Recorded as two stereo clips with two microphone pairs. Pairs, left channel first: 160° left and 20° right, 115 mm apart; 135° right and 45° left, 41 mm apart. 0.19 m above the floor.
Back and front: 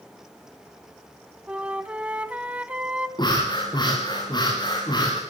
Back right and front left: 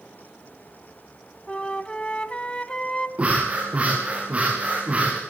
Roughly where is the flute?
Right.